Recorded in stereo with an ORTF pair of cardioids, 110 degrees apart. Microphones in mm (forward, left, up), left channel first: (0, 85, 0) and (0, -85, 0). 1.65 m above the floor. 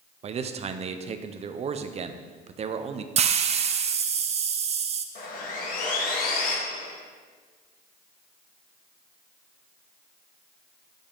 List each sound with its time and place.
0.2 s a man speaking: 40° right, 0.7 m
3.2 s a hiss: 40° right, 0.6 m
5.2 s sawing: 60° left, 1.9 m